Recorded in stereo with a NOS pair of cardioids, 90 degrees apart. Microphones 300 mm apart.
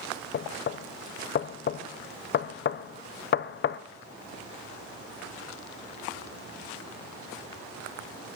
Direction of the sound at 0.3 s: 40° left.